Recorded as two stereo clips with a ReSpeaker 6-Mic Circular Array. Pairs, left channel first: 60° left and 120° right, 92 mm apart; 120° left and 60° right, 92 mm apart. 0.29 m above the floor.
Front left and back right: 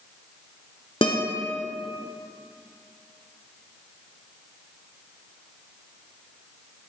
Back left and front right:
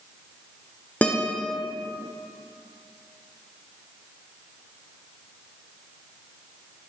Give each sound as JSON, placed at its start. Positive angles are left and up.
{"t": 1.0, "sound": "a guitar", "azimuth_deg": 45, "distance_m": 1.4}